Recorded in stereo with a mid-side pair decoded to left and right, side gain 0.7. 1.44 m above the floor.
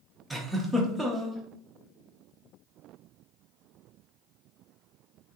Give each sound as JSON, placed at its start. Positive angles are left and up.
{"t": 0.3, "sound": "a giggle", "azimuth_deg": -10, "distance_m": 0.8}